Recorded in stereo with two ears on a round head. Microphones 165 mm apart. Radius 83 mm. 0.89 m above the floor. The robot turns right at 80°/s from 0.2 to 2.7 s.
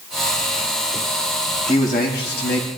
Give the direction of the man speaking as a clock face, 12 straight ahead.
11 o'clock.